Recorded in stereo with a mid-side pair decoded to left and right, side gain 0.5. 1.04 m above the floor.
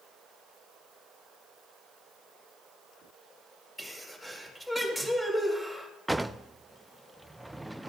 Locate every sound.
3.8 s a sneeze: 5° left, 5 m
6.1 s a drawer: 10° right, 0.5 m